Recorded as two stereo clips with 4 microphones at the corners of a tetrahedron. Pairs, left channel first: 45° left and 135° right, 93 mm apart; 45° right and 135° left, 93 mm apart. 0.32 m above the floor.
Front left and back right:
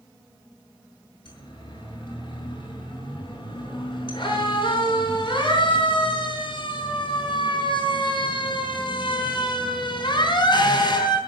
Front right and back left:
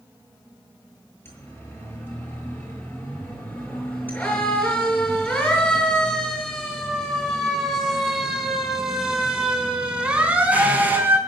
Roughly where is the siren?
Ahead.